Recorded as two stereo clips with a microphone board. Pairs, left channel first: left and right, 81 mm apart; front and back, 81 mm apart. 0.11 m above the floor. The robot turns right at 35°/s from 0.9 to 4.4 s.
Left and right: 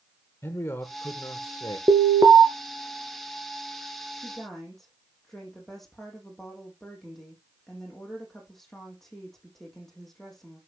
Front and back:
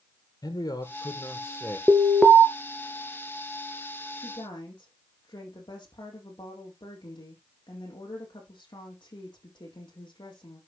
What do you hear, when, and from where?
0.4 s a man speaking: 35° left, 3 m; by 1.8 s 65° left, 3 m
1.9 s an alarm: 105° right, 1.5 m; by 2.4 s 85° right, 1.5 m
4.2 s a woman speaking: 5° right, 4 m; by 10.6 s 5° left, 4 m